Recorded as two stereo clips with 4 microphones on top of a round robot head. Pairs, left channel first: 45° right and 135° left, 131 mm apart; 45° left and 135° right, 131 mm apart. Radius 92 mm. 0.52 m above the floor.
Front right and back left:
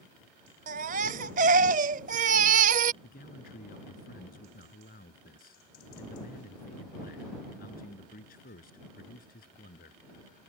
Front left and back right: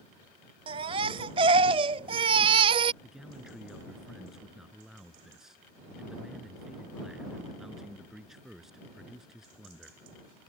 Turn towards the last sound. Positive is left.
turn(degrees=-50)